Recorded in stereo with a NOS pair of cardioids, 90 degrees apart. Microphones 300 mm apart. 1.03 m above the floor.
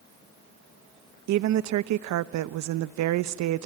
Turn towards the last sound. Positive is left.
turn(degrees=-70)